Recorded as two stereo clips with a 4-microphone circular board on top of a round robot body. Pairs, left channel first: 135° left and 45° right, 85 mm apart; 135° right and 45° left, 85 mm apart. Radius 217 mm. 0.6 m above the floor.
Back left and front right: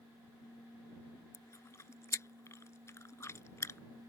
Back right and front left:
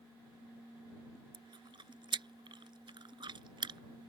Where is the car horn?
No car horn in this recording.